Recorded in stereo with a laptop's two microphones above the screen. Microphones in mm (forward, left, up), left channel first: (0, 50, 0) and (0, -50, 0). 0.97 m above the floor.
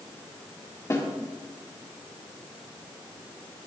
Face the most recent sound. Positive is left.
turn(degrees=30)  # may be behind; listen again after turning